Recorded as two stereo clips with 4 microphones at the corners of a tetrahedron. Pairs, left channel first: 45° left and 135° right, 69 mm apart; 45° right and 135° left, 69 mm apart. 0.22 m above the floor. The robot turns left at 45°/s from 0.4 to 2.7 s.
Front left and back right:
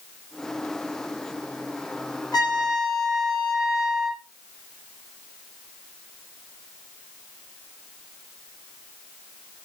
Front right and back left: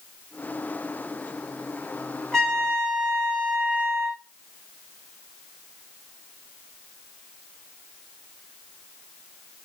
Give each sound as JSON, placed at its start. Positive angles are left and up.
{"t": 2.3, "sound": "a trumpet", "azimuth_deg": 35, "distance_m": 3.5}